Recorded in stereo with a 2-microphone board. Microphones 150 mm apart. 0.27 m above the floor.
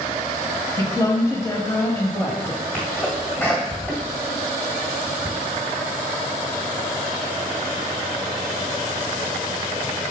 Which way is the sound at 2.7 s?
15° left (ahead or behind).